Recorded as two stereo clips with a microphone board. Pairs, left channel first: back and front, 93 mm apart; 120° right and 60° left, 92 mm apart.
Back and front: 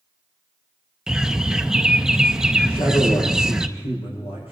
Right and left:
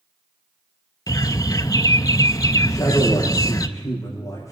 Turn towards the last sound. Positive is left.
turn(degrees=-175)